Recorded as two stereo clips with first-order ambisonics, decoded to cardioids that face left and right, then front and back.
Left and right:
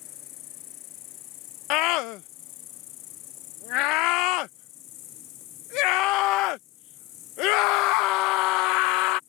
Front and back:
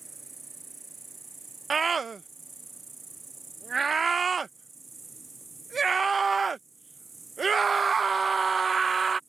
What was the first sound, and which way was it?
An insect, 105° left.